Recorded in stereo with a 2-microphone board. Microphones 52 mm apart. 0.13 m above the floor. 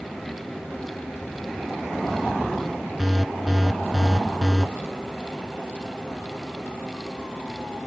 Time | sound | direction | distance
3.0 | an alarm | centre (ahead or behind) | 1.8 m